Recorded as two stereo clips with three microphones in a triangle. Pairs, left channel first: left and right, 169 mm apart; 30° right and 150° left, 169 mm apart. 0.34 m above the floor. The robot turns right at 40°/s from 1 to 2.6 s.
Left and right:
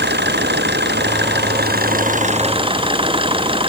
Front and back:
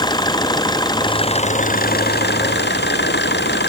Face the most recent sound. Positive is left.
turn(degrees=-30)